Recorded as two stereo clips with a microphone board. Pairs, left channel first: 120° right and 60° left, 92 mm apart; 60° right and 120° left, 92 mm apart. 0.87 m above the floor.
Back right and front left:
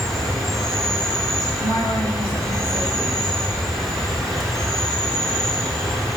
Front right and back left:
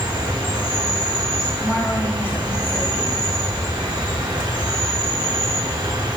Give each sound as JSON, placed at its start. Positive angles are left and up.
{"t": 0.0, "sound": "an insect", "azimuth_deg": 155, "distance_m": 1.2}
{"t": 1.6, "sound": "a woman speaking", "azimuth_deg": -120, "distance_m": 2.0}